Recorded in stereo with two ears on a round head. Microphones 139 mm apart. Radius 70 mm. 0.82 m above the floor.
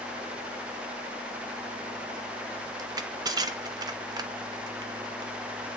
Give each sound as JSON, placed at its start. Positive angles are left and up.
{"t": 2.8, "sound": "crushing", "side_deg": -25, "distance_m": 0.7}